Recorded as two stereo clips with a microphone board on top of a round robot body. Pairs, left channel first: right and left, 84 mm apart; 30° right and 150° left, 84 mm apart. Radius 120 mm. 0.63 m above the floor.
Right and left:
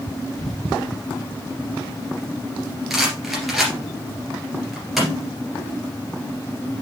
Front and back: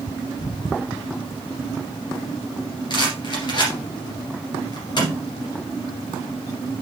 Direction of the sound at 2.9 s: 5° left.